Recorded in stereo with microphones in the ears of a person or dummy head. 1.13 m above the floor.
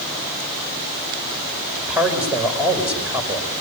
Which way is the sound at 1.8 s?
5° right (ahead or behind).